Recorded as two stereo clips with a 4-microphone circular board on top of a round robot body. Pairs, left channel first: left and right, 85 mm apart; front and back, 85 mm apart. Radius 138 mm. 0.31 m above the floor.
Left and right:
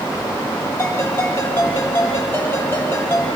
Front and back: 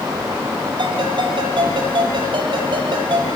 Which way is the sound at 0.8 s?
155° left.